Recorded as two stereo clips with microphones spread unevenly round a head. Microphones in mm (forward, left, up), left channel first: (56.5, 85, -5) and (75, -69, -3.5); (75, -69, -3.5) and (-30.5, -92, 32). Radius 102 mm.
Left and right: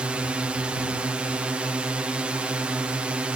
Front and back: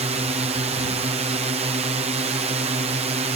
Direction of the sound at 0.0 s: 165° right.